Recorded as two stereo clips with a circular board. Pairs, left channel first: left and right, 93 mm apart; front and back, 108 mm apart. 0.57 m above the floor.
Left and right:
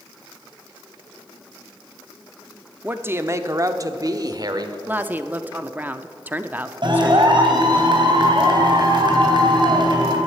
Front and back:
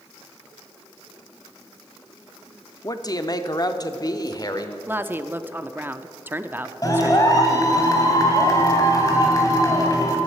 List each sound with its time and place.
2.8 s a man speaking: 25° right, 0.8 m; by 4.8 s 50° right, 1.6 m
4.9 s a woman speaking: 135° right, 0.7 m
6.8 s a clap: 55° right, 3 m